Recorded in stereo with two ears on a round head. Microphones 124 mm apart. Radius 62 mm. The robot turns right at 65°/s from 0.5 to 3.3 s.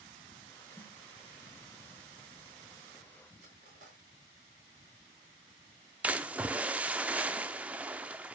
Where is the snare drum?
15° left (ahead or behind), 2.0 m; by 1.0 s centre (ahead or behind), 2.0 m.